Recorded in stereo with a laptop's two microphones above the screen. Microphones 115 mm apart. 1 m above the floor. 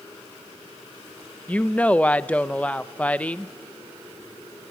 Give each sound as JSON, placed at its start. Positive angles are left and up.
{"t": 1.5, "sound": "a woman speaking", "side_deg": 10, "distance_m": 0.6}